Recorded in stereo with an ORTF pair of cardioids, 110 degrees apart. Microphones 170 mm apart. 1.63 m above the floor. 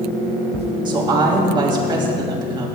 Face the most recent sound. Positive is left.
turn(degrees=-25)